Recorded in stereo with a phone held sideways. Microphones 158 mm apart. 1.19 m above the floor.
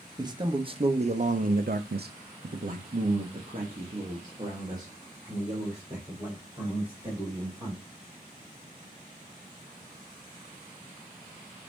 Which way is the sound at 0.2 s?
25° right (ahead or behind).